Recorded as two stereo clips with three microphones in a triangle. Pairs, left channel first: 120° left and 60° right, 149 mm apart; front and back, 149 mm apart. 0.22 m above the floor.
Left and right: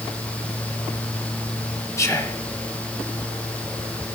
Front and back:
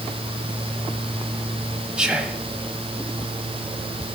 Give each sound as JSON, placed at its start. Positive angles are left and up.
{"t": 2.0, "sound": "whispering", "azimuth_deg": 110, "distance_m": 1.0}